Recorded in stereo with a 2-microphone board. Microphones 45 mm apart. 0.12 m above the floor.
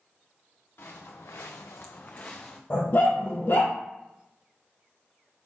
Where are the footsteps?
65° left (ahead or behind), 1.0 m; by 2.6 s 15° left (ahead or behind), 0.7 m.